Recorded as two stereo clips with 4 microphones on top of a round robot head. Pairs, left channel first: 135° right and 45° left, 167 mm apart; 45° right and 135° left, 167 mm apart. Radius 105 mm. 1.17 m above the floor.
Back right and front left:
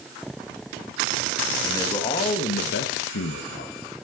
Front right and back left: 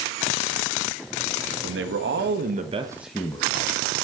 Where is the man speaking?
150° left, 1.9 m; by 3.9 s 95° right, 1.6 m.